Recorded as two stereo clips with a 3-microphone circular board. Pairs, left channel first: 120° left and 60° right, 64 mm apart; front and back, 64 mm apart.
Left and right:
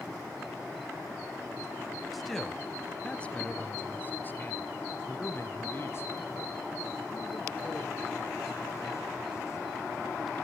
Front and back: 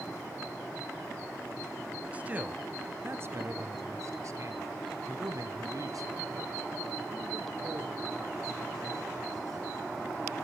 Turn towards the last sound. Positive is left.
turn(degrees=160)